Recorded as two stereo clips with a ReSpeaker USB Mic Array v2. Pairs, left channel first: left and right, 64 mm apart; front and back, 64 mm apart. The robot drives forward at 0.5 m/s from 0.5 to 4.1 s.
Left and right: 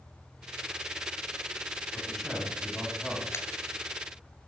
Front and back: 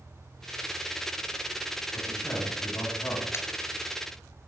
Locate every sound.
1.9 s a man speaking: 5° left, 3 m; by 3.2 s 10° left, 2.5 m
3.3 s a pop: 45° left, 0.7 m; by 3.5 s 50° left, 0.7 m